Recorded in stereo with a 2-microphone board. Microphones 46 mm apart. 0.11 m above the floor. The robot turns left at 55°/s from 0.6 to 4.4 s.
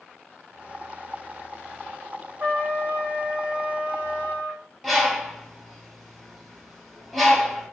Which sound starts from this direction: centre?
A bird, at 4.8 s.